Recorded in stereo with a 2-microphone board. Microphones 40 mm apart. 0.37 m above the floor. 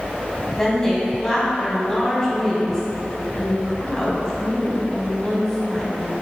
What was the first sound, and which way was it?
A woman speaking, 15° left (ahead or behind).